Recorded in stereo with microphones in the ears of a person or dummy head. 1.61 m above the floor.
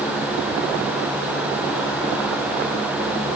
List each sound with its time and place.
Only background noise.